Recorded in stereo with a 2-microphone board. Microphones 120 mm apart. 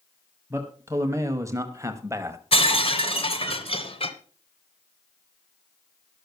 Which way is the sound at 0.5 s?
25° right (ahead or behind).